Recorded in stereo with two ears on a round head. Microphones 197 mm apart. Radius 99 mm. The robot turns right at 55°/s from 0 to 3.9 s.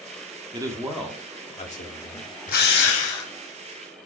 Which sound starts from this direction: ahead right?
A man speaking, at 0.5 s.